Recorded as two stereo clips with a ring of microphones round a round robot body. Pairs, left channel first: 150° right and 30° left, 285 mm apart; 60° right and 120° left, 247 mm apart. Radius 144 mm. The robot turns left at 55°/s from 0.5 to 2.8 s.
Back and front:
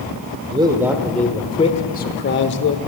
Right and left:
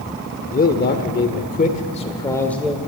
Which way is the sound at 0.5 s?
30° right.